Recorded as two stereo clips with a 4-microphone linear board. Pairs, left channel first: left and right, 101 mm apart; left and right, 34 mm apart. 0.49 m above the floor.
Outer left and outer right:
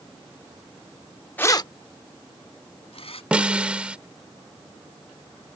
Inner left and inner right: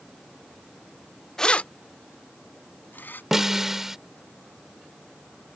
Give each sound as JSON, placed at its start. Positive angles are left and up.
{"t": 1.4, "sound": "keys jangling", "side_deg": 15}
{"t": 3.3, "sound": "a snare drum", "side_deg": -10}